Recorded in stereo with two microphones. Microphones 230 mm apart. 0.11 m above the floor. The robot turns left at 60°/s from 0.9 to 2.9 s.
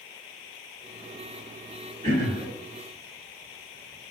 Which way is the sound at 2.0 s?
30° right (ahead or behind).